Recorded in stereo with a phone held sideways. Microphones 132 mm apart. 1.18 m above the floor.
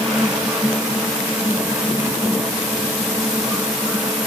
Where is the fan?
5° right (ahead or behind), 1.2 m.